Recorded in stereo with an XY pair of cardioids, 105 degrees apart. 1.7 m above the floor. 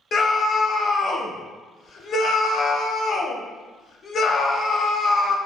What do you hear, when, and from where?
0.1 s a scream: 45° left, 0.7 m